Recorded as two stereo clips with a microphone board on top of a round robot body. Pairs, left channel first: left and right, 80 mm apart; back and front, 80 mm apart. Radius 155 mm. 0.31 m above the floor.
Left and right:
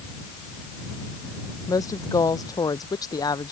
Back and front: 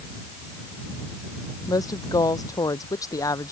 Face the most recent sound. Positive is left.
turn(degrees=130)